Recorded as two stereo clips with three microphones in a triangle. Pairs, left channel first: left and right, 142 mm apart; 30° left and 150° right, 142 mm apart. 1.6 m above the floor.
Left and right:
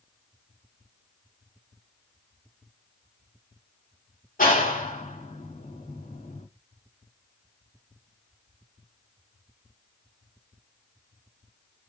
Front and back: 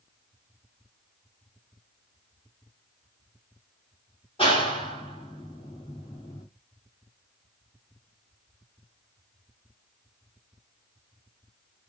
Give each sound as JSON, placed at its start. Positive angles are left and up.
{"t": 4.4, "sound": "a clap", "azimuth_deg": 80, "distance_m": 2.5}